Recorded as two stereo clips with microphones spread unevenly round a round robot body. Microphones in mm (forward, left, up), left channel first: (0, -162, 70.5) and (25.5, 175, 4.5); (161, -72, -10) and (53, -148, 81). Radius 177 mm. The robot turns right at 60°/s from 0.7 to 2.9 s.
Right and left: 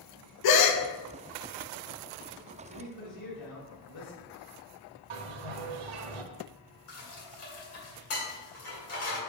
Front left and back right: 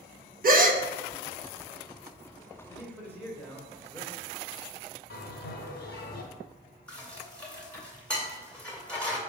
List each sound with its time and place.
0.4 s a gasp: 100° right, 1.0 m; by 0.8 s 95° right, 1.0 m
2.7 s a man speaking: 75° right, 3.5 m; by 4.3 s 65° right, 3.5 m
5.1 s a bell: 75° left, 0.9 m
6.9 s dishes clattering: 45° right, 2.5 m